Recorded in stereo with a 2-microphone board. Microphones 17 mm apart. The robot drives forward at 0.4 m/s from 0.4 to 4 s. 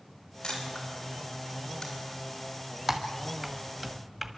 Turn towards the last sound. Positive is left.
turn(degrees=-20)  # may be behind; listen again after turning